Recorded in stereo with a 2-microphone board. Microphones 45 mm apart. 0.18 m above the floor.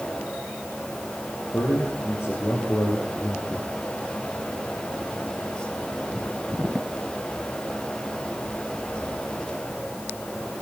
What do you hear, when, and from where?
1.5 s a man speaking: 70° left (ahead or behind), 6 m; by 3.7 s 55° left (ahead or behind), 3 m